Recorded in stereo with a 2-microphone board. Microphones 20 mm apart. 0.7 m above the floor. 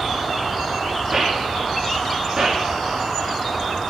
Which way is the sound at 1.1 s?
35° right (ahead or behind).